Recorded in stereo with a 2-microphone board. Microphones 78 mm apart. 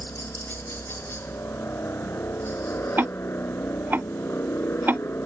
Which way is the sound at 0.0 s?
30° left (ahead or behind).